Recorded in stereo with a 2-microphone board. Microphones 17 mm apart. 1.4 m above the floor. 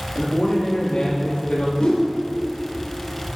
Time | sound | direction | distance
0.1 | a man speaking | 85° left | 2.5 m
1.8 | a whoosh | 80° left | 2 m